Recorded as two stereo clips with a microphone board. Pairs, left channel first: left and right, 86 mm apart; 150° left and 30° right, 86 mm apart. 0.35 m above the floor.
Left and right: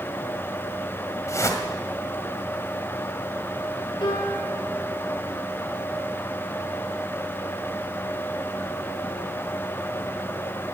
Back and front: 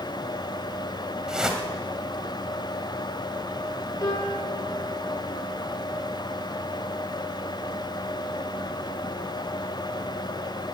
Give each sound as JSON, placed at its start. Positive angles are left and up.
{"t": 1.3, "sound": "a whoosh", "azimuth_deg": 50, "distance_m": 2.0}
{"t": 4.0, "sound": "a piano", "azimuth_deg": 105, "distance_m": 5.0}